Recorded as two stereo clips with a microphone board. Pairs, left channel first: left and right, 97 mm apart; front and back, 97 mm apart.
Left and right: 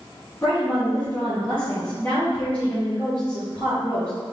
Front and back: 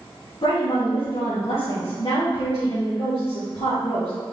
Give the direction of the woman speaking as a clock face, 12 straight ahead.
11 o'clock.